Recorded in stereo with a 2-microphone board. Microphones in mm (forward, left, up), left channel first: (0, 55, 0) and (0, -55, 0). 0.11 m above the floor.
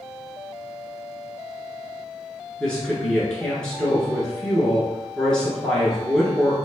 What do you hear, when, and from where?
2.6 s a woman speaking: 10° left (ahead or behind), 1.1 m